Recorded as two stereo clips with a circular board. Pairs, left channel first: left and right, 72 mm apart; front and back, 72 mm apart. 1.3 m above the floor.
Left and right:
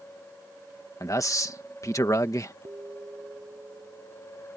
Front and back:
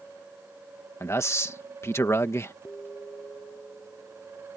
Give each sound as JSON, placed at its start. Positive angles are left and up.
{"t": 1.0, "sound": "a man speaking", "azimuth_deg": 50}
{"t": 2.6, "sound": "an alarm", "azimuth_deg": -55}